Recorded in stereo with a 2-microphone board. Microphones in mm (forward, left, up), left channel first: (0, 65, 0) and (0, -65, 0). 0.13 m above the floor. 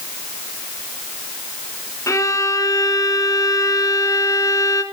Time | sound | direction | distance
2.1 | a violin | 25° left (ahead or behind) | 1.0 m